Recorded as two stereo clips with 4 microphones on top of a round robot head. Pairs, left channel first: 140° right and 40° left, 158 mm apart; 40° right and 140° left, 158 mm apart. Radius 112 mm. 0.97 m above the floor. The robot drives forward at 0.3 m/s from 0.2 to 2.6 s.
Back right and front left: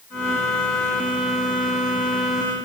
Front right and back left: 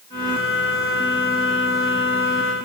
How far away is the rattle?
I don't hear a rattle.